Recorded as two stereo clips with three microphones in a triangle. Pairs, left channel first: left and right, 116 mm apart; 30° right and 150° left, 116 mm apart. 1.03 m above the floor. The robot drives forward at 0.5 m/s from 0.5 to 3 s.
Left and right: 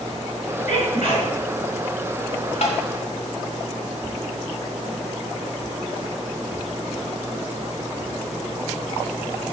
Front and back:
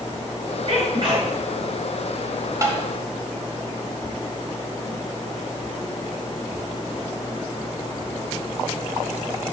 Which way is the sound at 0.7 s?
100° left.